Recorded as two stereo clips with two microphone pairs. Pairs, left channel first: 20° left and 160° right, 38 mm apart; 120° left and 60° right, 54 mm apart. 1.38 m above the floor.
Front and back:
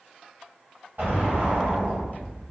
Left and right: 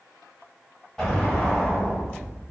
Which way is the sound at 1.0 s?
150° right.